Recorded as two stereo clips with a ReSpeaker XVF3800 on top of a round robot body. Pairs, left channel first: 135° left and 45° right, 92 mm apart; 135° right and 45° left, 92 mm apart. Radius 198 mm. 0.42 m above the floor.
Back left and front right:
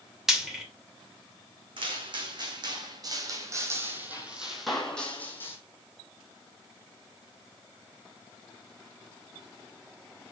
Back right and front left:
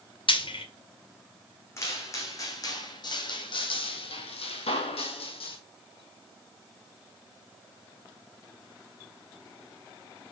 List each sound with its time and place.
0.3 s frying: 130° right, 2.5 m
1.8 s footsteps: 75° right, 2 m; by 5.6 s 160° right, 1.5 m